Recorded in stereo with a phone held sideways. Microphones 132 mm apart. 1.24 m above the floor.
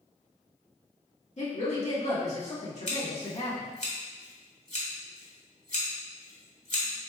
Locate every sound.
1.4 s a woman speaking: 60° left (ahead or behind), 1.3 m
2.9 s scissors: 60° left (ahead or behind), 1.5 m